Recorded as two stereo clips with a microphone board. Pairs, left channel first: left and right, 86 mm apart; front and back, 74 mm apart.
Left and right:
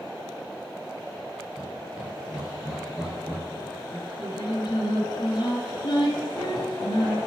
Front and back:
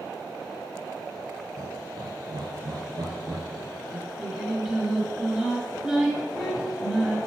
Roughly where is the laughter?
Behind.